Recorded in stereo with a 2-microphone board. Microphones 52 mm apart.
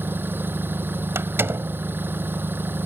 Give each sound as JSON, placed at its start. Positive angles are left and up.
{"t": 0.0, "sound": "an engine running", "side_deg": -40}
{"t": 1.1, "sound": "a door slam", "side_deg": -50}